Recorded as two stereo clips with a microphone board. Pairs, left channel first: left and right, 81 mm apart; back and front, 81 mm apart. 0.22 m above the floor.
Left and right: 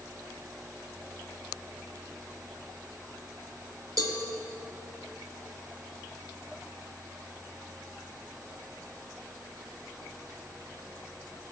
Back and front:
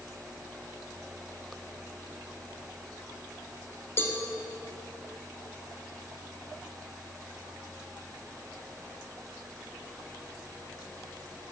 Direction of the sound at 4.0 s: 120° right.